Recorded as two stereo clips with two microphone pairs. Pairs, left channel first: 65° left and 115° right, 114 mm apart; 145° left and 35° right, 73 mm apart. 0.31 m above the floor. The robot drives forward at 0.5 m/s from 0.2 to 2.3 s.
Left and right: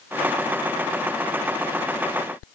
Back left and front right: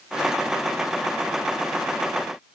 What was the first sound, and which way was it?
Only background noise.